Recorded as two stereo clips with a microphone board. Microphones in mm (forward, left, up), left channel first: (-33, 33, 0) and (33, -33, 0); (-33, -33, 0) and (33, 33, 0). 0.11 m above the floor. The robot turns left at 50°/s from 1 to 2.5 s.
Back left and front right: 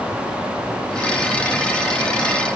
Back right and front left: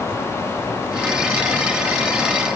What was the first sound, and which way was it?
Only background noise.